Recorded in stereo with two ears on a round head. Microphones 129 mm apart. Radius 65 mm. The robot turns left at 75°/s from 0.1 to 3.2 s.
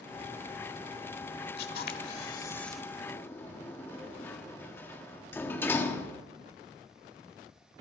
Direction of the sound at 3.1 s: 20° left (ahead or behind).